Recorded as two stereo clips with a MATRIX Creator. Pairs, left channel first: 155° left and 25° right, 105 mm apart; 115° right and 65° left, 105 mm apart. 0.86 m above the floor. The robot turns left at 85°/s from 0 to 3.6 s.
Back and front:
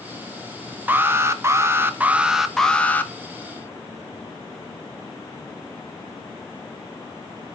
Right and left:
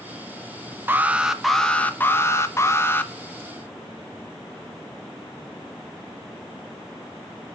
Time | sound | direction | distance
0.9 | an alarm | 25° left | 0.7 m